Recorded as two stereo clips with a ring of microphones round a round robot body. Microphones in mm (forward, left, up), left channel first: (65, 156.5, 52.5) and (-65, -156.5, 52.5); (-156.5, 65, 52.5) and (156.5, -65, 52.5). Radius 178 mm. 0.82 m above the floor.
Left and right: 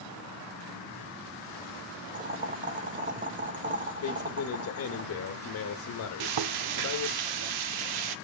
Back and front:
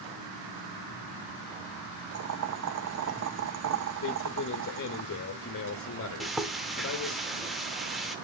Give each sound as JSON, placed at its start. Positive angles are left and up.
{"t": 2.1, "sound": "boiling", "azimuth_deg": -50, "distance_m": 1.0}
{"t": 4.0, "sound": "a man speaking", "azimuth_deg": 110, "distance_m": 0.9}
{"t": 6.2, "sound": "frying", "azimuth_deg": -110, "distance_m": 0.6}